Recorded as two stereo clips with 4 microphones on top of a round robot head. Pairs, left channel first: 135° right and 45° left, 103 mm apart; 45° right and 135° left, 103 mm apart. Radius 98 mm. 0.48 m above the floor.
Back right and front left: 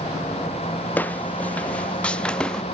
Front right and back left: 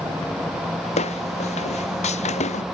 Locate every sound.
1.0 s footsteps: 60° right; by 2.6 s 55° right